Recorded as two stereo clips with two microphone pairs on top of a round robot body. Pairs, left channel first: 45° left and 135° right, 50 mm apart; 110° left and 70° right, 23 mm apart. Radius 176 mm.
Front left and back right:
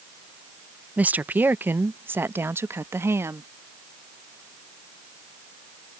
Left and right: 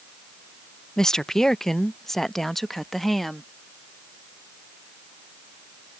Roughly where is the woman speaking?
Behind.